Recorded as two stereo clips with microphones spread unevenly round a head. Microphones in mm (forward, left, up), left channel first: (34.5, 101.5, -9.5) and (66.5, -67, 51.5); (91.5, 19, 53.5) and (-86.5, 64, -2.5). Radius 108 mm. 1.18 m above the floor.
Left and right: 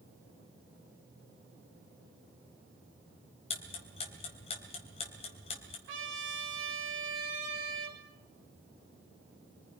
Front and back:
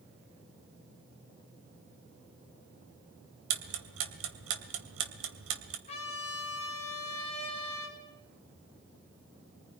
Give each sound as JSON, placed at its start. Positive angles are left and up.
{"t": 3.5, "sound": "ticking", "azimuth_deg": 170, "distance_m": 2.5}
{"t": 5.9, "sound": "a trumpet", "azimuth_deg": -80, "distance_m": 4.5}